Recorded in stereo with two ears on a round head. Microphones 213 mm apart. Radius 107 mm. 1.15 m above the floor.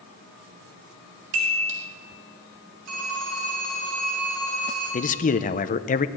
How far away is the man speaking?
About 0.6 m.